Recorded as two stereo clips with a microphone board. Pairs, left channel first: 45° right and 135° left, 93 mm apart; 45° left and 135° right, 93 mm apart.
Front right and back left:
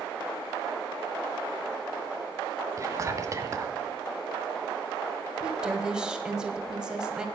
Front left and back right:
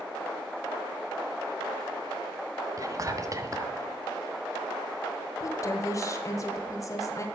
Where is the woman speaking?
60° left, 1.6 m.